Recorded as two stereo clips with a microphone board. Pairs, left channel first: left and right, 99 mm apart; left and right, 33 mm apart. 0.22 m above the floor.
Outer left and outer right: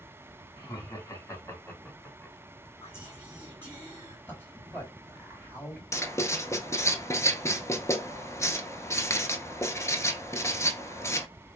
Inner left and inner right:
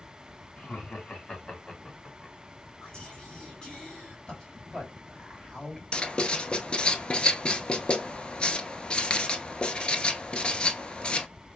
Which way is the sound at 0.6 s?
45° left (ahead or behind).